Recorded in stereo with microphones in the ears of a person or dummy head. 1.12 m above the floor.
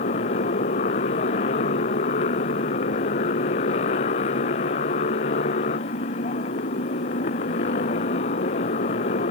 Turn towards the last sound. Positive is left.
turn(degrees=45)  # may be behind; listen again after turning